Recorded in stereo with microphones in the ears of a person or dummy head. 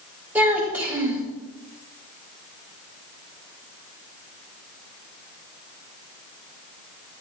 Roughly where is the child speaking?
Centre.